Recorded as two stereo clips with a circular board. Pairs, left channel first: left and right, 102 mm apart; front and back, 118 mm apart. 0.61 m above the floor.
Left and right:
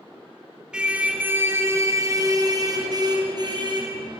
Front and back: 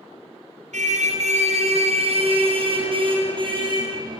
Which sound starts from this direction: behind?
A car horn, at 0.7 s.